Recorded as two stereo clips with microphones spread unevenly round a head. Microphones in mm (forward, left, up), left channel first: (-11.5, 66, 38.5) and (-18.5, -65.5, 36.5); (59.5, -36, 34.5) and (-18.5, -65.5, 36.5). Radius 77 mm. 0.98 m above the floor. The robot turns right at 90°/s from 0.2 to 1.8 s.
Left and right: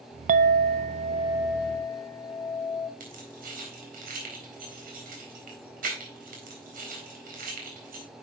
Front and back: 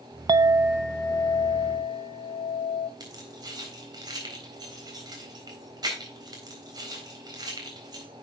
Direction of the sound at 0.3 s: 115° right.